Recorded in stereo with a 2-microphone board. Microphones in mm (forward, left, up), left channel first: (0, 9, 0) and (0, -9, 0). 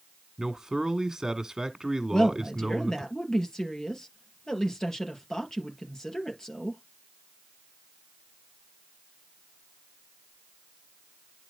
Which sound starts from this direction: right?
A man speaking, at 0.4 s.